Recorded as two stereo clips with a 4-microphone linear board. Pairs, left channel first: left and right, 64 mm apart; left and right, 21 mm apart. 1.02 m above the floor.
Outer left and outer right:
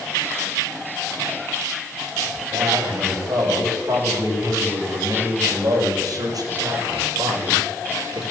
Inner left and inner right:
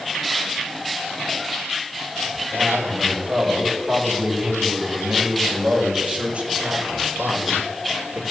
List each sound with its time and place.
2.3 s a man speaking: 60° right (ahead or behind), 7 m; by 8.2 s 65° right (ahead or behind), 3.5 m